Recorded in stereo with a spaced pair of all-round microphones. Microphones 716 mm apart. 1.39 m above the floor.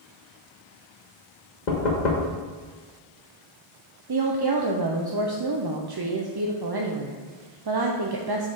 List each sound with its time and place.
1.7 s knocking: 75° left (ahead or behind), 1.3 m
4.1 s a woman speaking: 35° right (ahead or behind), 0.6 m